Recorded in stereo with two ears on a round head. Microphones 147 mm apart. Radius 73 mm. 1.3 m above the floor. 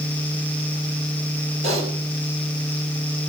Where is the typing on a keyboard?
40° right (ahead or behind), 6 m.